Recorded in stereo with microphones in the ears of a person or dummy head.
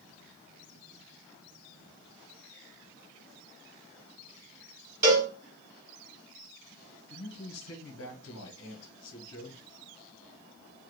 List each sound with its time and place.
5.0 s a cowbell: 20° right (ahead or behind), 0.9 m
7.1 s a man speaking: 75° left (ahead or behind), 1.3 m